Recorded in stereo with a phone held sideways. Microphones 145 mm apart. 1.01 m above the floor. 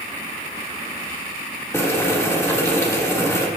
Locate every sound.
1.7 s boiling: 20° left (ahead or behind), 1.8 m